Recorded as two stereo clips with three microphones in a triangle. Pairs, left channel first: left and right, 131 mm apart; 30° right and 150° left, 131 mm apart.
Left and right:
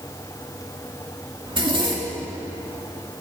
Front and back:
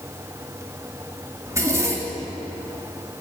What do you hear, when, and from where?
1.5 s a zipper: 140° right, 2.5 m